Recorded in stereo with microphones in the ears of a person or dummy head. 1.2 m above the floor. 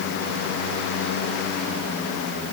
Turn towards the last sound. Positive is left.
No sound to turn to.